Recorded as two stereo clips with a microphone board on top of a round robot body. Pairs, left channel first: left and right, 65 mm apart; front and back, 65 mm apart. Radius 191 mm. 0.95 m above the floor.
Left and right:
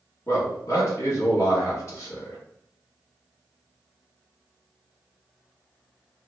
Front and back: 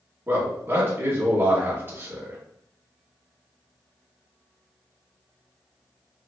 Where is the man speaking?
125° left, 1.9 m.